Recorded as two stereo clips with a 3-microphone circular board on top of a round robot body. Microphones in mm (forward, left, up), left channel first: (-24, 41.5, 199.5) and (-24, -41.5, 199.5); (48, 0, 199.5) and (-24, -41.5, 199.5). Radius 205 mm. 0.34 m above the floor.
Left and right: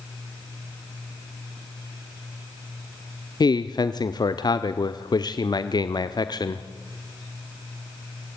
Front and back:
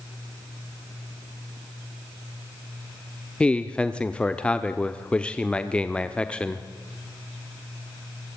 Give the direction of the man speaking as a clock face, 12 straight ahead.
8 o'clock.